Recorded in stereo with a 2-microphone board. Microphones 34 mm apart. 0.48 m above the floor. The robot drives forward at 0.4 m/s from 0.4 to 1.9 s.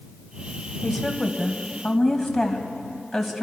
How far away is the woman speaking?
About 2.5 m.